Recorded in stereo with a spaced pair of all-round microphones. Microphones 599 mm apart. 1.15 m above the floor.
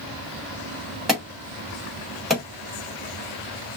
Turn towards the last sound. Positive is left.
turn(degrees=0)  # may be behind; listen again after turning